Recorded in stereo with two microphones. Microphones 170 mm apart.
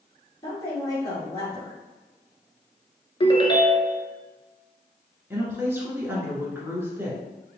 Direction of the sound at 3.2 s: 30° left (ahead or behind).